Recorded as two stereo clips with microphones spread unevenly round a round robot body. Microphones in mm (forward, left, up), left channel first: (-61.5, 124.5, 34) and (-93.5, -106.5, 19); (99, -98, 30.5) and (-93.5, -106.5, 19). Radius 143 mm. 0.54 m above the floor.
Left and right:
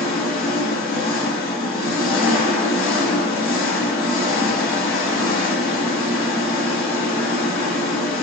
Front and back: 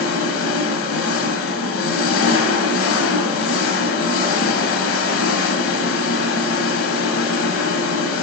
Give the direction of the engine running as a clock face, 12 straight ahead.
12 o'clock.